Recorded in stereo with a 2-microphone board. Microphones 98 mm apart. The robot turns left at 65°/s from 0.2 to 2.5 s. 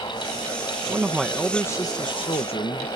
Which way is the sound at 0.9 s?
155° right.